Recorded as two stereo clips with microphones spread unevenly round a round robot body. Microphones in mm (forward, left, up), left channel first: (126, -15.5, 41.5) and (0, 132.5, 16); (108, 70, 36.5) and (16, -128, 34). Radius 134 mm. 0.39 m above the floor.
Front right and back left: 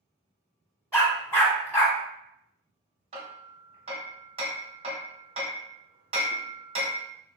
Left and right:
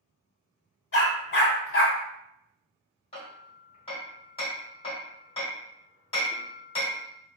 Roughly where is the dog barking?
Ahead left.